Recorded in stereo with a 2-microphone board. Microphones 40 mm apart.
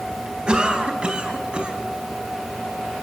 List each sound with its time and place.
0.5 s a cough: 25° right (ahead or behind), 3.5 m